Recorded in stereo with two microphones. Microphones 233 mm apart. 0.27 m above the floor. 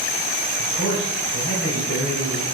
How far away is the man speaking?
About 5.5 m.